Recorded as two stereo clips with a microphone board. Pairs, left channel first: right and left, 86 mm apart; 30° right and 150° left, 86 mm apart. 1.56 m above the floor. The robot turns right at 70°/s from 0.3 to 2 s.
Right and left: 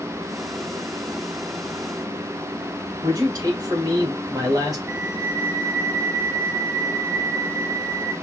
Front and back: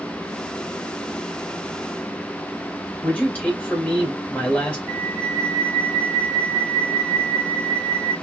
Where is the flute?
25° left, 3.5 m.